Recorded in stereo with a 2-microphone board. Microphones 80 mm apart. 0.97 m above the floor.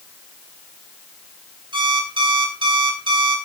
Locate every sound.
1.7 s an alarm clock: 70° right (ahead or behind), 4.5 m